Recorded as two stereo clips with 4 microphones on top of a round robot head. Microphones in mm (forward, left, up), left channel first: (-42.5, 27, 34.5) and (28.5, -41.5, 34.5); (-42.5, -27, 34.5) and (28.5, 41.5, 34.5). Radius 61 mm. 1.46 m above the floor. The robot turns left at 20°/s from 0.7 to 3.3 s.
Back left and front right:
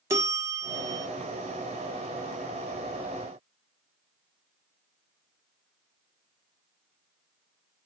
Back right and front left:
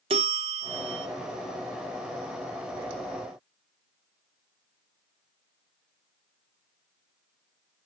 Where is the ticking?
No ticking in this recording.